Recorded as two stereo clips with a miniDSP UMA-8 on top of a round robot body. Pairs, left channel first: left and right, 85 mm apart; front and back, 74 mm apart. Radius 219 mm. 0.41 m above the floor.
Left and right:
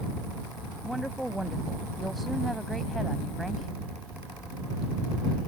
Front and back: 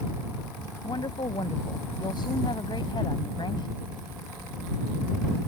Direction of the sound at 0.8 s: Straight ahead.